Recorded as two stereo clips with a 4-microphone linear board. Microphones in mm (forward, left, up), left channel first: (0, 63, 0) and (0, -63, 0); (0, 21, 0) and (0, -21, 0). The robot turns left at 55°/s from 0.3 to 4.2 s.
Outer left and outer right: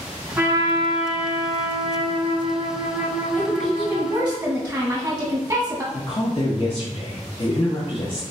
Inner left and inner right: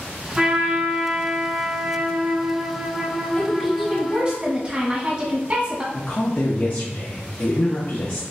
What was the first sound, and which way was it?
A trumpet, 20° right.